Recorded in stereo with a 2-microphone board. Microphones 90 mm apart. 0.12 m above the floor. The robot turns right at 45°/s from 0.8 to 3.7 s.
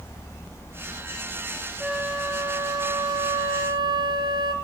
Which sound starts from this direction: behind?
A flute, at 1.8 s.